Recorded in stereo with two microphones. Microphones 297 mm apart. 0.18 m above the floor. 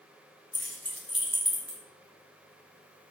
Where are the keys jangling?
50° left (ahead or behind), 1.2 m; by 1.8 s 25° right (ahead or behind), 0.9 m.